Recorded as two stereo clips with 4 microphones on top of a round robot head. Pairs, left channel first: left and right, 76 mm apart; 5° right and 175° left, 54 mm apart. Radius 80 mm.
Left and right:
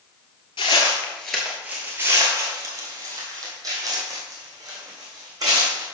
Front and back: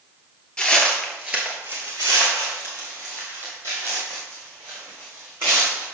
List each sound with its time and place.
0.6 s footsteps: 65° left, 1.0 m; by 5.8 s 130° right, 3.5 m